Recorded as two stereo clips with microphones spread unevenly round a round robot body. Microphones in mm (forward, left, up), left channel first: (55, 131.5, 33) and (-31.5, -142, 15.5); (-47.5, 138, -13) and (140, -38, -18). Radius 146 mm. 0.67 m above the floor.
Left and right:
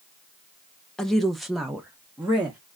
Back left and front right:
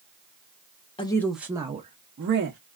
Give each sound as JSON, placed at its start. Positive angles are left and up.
{"t": 1.0, "sound": "a woman speaking", "azimuth_deg": 165, "distance_m": 0.6}